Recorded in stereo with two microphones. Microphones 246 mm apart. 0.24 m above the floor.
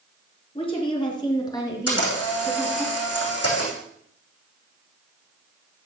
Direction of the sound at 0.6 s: 20° left (ahead or behind).